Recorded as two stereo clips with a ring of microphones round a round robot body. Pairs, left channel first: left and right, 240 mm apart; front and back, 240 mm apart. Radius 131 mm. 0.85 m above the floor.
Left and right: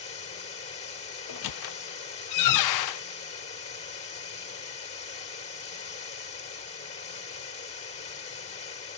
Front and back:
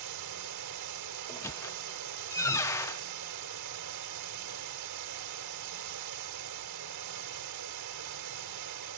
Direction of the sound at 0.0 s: 150° left.